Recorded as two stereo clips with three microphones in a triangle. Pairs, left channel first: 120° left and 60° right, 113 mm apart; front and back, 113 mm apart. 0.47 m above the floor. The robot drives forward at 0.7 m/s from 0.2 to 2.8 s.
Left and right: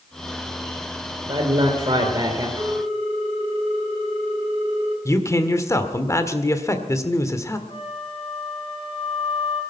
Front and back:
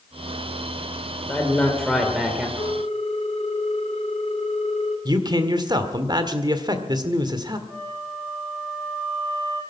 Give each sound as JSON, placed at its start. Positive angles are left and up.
{"t": 1.3, "sound": "a man speaking", "azimuth_deg": -70, "distance_m": 2.0}
{"t": 2.6, "sound": "a ringtone", "azimuth_deg": -25, "distance_m": 3.5}
{"t": 5.0, "sound": "a man speaking", "azimuth_deg": 165, "distance_m": 1.7}
{"t": 7.7, "sound": "a flute", "azimuth_deg": 100, "distance_m": 4.5}